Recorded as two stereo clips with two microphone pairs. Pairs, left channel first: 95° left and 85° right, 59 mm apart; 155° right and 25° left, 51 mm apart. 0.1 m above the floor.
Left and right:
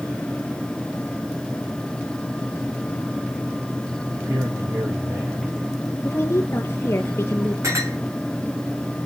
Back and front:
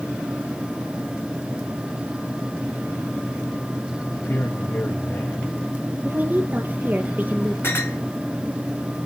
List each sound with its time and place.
4.1 s a man speaking: 110° right, 5 m
6.0 s a woman speaking: 70° left, 2.5 m
7.6 s a clink: 110° right, 5 m